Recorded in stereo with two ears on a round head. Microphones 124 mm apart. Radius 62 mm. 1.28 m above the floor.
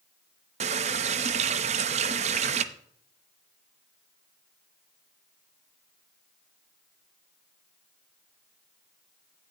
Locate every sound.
0.6 s a running tap: 50° right (ahead or behind), 0.7 m